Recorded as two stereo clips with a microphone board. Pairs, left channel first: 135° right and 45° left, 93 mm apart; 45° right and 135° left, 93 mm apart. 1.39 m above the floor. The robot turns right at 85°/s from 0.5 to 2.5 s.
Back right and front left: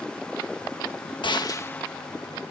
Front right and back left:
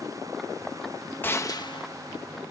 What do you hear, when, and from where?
1.2 s a gunshot: 110° right; by 1.9 s 55° right